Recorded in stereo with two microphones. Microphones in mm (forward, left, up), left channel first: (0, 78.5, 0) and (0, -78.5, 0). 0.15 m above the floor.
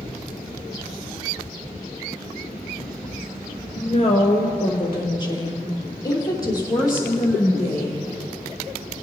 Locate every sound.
3.8 s a woman speaking: 45° left (ahead or behind), 1.6 m; by 8.1 s 20° left (ahead or behind), 5.5 m